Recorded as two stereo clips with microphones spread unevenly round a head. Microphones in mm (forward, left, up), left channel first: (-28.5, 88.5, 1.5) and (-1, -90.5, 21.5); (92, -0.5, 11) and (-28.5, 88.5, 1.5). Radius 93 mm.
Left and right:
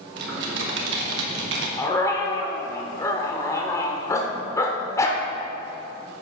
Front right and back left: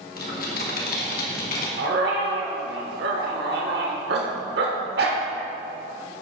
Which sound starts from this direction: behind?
A dog barking, at 1.8 s.